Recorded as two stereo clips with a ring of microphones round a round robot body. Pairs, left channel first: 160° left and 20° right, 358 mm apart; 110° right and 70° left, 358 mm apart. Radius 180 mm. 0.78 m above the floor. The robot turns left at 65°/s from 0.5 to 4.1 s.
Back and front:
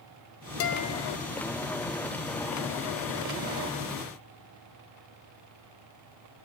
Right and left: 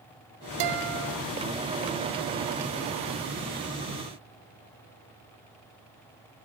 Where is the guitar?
105° left, 1.3 m; by 1.2 s 65° left, 1.3 m.